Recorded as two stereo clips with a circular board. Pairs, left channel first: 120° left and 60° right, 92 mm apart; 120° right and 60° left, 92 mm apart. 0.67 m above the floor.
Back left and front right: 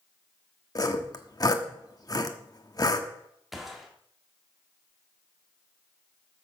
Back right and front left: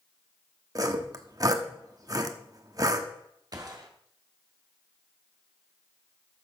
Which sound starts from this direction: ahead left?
A gunshot, at 3.5 s.